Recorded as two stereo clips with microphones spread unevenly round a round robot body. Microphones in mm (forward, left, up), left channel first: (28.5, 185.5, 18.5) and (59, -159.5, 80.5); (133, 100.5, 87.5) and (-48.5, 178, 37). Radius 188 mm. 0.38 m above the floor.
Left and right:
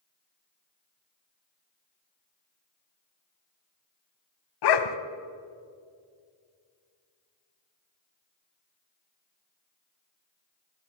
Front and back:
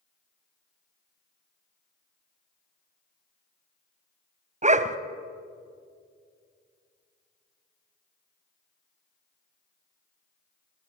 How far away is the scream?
I don't hear a scream.